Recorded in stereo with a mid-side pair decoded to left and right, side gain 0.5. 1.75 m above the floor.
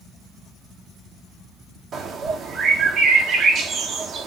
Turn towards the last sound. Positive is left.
turn(degrees=-55)